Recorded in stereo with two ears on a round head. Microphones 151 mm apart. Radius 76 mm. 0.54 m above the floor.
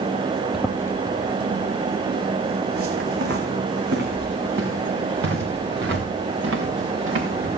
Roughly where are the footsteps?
Centre.